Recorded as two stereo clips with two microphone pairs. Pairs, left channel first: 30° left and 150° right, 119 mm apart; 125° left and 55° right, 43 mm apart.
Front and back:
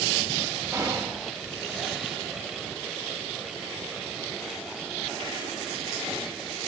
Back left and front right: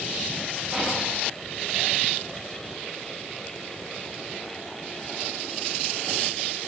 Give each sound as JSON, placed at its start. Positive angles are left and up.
{"t": 0.7, "sound": "whispering", "azimuth_deg": -115, "distance_m": 0.6}